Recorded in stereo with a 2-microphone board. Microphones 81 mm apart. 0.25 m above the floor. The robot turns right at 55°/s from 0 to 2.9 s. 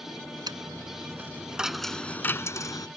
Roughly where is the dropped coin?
Right.